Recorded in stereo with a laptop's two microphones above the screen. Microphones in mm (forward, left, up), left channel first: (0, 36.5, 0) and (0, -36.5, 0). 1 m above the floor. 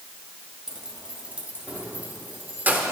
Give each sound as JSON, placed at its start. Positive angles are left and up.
{"t": 0.7, "sound": "keys jangling", "side_deg": -10, "distance_m": 1.2}